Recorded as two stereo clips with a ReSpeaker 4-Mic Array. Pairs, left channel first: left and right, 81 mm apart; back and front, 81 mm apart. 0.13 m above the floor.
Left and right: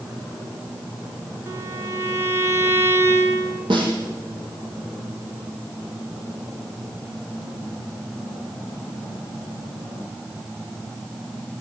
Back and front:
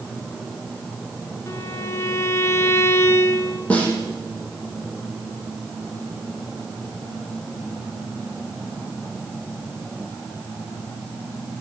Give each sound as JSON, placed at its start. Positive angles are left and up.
{"t": 1.5, "sound": "a violin", "azimuth_deg": -135, "distance_m": 2.0}
{"t": 3.7, "sound": "a snare drum", "azimuth_deg": -105, "distance_m": 5.5}